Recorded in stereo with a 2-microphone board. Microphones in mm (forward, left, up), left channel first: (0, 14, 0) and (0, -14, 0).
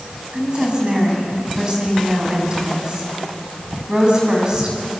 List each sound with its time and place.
0.3 s a woman speaking: 35° right (ahead or behind), 6 m